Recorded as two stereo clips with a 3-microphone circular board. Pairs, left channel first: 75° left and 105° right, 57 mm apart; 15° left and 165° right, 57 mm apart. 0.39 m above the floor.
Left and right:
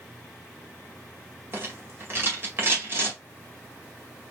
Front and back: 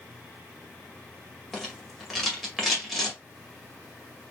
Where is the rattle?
75° right, 1.9 m.